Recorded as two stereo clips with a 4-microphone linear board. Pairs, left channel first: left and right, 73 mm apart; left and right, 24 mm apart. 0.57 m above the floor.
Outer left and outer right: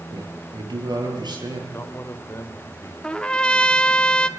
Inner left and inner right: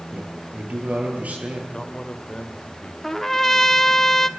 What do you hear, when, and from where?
0.1 s a man speaking: 85° right, 9 m
1.7 s a man speaking: 35° left (ahead or behind), 2.5 m
3.0 s a trumpet: 15° left (ahead or behind), 1.0 m